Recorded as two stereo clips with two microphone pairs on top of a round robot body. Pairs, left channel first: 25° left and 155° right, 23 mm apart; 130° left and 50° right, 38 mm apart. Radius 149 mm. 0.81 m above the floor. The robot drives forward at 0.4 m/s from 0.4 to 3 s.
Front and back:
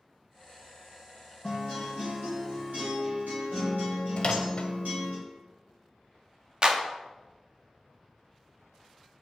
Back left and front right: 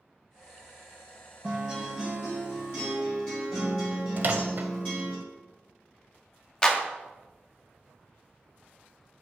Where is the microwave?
10° right, 0.6 m.